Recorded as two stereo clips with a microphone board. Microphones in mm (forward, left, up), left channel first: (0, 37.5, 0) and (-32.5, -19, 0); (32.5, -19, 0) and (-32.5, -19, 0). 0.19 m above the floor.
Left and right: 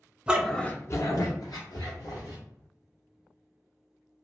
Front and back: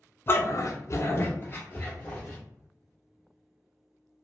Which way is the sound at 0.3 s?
50° right.